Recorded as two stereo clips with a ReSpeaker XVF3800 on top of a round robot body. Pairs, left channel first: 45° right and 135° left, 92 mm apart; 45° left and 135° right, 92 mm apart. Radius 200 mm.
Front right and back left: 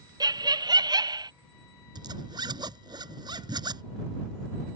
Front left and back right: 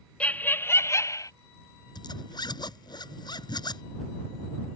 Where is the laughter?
120° left; by 1.3 s 95° left.